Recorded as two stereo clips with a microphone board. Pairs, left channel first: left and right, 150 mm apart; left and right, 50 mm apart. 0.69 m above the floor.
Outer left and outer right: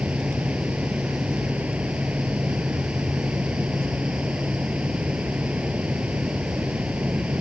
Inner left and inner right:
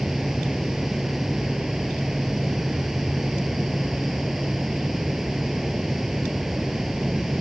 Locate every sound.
0.0 s running water: 10° right (ahead or behind)